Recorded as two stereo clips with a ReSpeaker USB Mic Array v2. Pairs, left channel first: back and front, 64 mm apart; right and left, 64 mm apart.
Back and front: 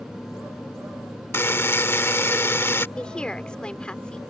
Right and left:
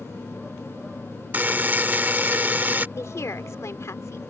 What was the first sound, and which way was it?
A buzzer, 145° left.